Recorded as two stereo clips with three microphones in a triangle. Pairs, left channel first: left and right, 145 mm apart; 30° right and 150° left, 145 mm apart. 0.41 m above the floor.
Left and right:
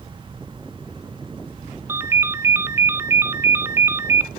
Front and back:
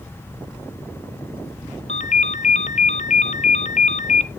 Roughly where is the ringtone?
Ahead.